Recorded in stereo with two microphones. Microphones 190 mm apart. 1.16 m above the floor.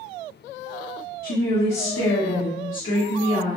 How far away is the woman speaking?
About 0.5 m.